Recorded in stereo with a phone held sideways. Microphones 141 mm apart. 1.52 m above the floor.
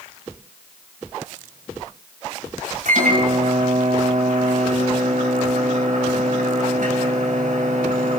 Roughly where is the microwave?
Right.